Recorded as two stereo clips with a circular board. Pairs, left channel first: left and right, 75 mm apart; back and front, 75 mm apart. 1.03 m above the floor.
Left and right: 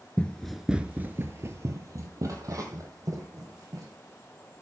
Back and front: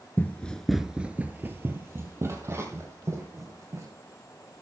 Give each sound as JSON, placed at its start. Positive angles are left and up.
{"t": 0.2, "sound": "running footsteps", "azimuth_deg": 145, "distance_m": 1.1}